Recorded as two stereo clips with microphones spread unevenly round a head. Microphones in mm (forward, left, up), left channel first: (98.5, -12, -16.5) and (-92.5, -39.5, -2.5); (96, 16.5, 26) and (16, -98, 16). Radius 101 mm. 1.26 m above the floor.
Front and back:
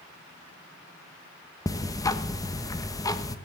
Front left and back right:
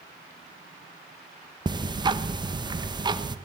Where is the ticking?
65° right, 1.1 m.